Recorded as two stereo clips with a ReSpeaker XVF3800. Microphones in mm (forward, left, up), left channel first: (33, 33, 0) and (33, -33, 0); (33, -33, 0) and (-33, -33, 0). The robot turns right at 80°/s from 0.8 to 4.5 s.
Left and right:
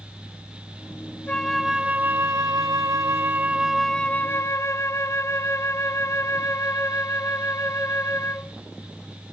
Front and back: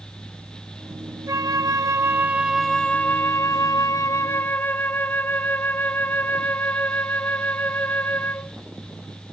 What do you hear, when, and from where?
1.3 s a flute: 160° left, 0.5 m; by 8.6 s 55° left, 0.5 m